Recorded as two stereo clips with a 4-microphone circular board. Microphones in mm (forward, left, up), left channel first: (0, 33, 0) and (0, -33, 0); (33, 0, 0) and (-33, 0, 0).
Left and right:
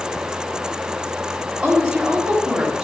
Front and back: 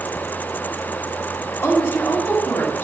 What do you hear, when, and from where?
1.6 s a woman speaking: 20° right, 1.6 m